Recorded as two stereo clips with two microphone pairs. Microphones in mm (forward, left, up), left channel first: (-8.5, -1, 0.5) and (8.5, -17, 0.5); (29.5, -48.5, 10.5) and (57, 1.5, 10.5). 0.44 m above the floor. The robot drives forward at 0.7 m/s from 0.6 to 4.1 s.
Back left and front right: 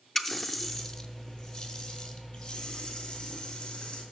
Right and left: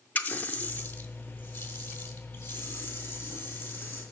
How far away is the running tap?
About 0.6 m.